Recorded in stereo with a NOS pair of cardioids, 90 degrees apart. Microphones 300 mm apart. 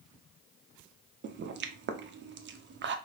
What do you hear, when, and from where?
1.2 s a pop: 40° right, 0.5 m